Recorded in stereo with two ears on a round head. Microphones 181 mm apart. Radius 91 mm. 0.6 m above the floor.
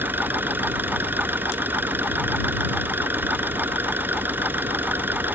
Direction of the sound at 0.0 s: 10° right (ahead or behind).